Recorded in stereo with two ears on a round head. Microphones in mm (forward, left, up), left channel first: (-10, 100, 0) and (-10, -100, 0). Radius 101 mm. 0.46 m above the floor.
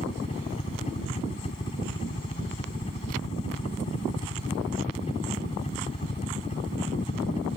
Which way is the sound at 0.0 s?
30° left (ahead or behind).